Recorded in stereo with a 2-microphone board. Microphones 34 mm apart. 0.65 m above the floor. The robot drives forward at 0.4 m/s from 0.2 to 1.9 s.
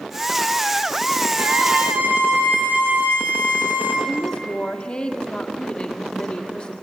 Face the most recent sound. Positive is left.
turn(degrees=30)  # may be behind; listen again after turning